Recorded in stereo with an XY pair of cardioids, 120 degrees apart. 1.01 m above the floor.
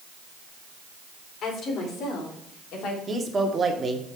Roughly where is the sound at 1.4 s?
Ahead left.